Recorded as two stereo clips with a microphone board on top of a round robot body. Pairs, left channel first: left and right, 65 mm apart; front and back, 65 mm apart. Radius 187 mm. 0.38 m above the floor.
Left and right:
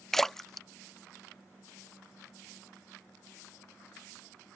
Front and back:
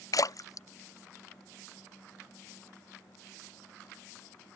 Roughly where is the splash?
Ahead.